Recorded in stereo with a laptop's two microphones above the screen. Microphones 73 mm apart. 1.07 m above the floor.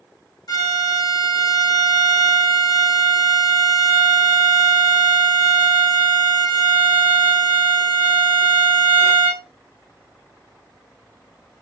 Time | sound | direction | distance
0.5 | a violin | 55° left (ahead or behind) | 1.5 m